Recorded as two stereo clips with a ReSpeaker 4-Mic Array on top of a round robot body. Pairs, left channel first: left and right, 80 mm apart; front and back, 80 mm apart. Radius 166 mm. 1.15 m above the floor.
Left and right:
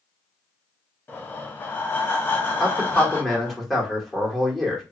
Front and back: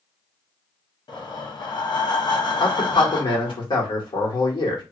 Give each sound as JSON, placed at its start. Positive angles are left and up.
{"t": 1.1, "sound": "breathing", "azimuth_deg": 25, "distance_m": 0.8}
{"t": 2.6, "sound": "a man speaking", "azimuth_deg": 0, "distance_m": 1.6}